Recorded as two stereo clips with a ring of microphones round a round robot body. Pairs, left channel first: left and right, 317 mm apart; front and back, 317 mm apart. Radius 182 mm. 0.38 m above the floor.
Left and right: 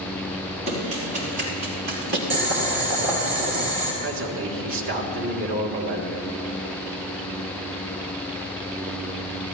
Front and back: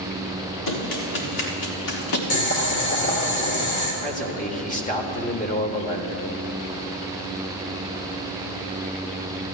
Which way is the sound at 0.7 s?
15° right.